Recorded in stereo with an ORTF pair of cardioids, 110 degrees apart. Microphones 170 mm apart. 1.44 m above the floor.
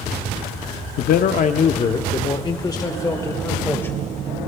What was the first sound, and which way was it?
A man speaking, 65° left.